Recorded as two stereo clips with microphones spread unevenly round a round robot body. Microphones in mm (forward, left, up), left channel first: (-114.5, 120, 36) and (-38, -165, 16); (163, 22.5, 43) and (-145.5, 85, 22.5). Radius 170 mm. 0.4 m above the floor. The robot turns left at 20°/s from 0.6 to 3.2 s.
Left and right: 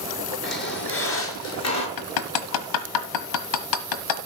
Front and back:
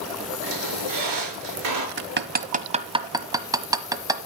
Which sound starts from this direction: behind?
A squeak, at 0.4 s.